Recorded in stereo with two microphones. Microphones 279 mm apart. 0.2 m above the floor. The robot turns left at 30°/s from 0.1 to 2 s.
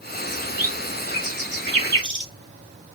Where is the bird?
55° right (ahead or behind), 3 m; by 2.3 s 45° right (ahead or behind), 3 m.